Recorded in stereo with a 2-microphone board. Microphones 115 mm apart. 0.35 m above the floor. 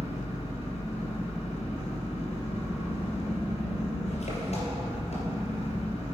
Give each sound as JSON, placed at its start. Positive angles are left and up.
{"t": 0.0, "sound": "an engine running", "side_deg": 75, "distance_m": 3.0}